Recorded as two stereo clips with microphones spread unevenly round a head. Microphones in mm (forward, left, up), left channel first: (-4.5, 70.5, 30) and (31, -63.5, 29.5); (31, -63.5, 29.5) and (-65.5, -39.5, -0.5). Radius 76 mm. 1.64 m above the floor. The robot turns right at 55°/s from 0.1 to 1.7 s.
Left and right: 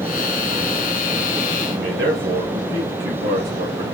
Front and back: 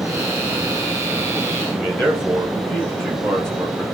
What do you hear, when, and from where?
1.7 s a man speaking: 95° right, 1.7 m